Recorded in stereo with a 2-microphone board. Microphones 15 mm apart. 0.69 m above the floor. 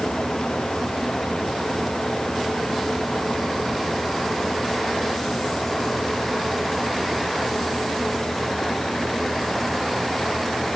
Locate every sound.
Only background noise.